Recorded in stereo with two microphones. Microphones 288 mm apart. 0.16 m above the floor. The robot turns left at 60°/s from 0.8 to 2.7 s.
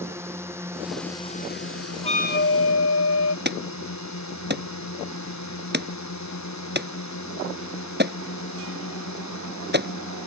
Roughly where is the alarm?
Right.